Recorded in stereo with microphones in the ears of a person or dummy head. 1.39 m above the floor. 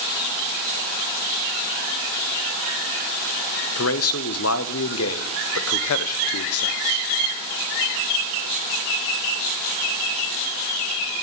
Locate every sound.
3.8 s a man speaking: 70° left (ahead or behind), 0.6 m